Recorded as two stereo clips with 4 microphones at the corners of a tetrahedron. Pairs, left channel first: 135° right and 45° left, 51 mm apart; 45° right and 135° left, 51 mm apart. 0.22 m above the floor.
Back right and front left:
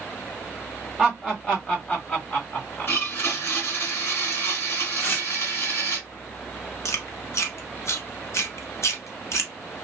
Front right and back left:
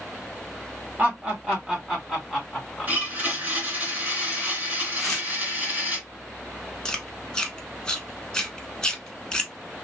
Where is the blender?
170° right, 2 m.